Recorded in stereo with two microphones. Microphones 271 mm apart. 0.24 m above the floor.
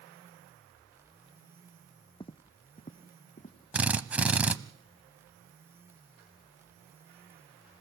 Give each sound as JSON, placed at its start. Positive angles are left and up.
{"t": 2.2, "sound": "footsteps", "side_deg": 20, "distance_m": 0.6}
{"t": 3.7, "sound": "a drill", "side_deg": -5, "distance_m": 0.6}